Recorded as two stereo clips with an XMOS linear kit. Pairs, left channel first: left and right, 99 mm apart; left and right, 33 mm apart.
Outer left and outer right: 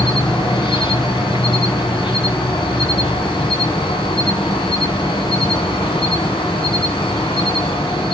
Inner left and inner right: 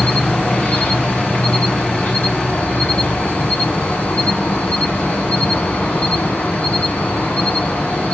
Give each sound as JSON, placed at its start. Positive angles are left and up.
{"t": 0.0, "sound": "an insect", "side_deg": 50, "distance_m": 3.0}